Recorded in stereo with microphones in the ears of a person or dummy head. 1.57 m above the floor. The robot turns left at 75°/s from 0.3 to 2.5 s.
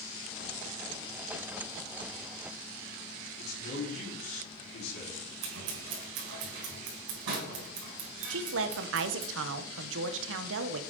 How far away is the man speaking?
About 4.5 m.